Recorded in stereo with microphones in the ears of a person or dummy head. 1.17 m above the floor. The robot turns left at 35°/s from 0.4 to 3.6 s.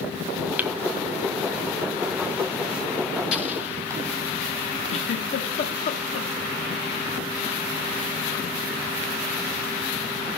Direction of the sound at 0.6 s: 5° right (ahead or behind).